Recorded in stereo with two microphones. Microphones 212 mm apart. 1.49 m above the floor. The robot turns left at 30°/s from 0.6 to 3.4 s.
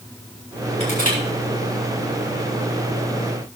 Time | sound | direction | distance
0.8 | crushing | 30° left (ahead or behind) | 6 m